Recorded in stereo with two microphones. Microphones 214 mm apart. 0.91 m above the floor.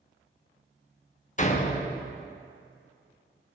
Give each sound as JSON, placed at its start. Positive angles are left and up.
{"t": 1.4, "sound": "a door slam", "side_deg": 35, "distance_m": 1.0}